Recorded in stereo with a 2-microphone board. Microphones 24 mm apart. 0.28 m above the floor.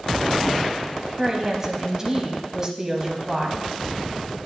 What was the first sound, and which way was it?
A woman speaking, 20° right (ahead or behind).